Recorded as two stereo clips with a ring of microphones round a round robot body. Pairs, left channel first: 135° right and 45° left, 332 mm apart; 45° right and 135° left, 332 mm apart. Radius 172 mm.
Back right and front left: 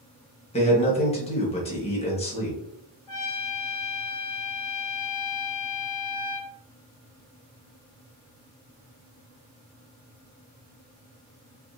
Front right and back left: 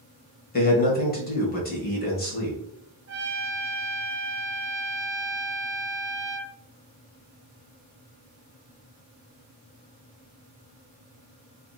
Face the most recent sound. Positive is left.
turn(degrees=-170)